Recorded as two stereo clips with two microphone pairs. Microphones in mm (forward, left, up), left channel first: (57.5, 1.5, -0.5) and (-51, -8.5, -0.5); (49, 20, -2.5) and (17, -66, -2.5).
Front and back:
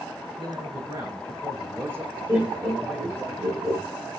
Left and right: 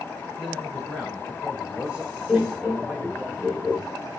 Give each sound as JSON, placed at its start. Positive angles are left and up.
{"t": 0.4, "sound": "a man speaking", "azimuth_deg": 165, "distance_m": 1.9}
{"t": 2.3, "sound": "laughter", "azimuth_deg": -170, "distance_m": 1.0}